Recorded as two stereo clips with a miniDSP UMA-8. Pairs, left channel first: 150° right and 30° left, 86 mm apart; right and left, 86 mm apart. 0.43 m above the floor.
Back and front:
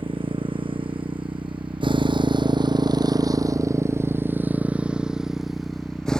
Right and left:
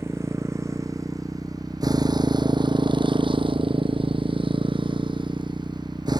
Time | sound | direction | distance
0.0 | a motorcycle | 30° left | ?